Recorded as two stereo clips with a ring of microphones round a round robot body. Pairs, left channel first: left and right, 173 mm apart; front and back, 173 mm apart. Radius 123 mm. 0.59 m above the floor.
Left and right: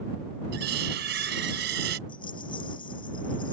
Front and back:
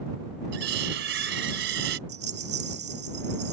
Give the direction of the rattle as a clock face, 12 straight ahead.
7 o'clock.